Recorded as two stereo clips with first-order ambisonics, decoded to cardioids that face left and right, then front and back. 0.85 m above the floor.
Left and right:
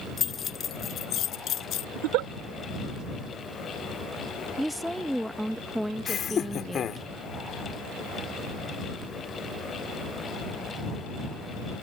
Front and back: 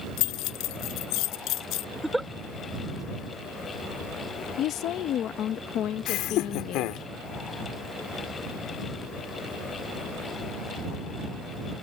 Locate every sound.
0.2 s keys jangling: 25° left; by 1.9 s 40° left
1.9 s a giggle: 95° right
4.6 s a woman speaking: 5° right
6.1 s laughter: 30° left